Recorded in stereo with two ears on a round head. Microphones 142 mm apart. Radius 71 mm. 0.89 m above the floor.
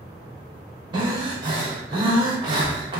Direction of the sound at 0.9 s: 30° right (ahead or behind).